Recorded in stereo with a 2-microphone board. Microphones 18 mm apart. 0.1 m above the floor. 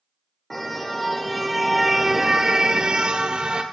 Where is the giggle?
No giggle in this recording.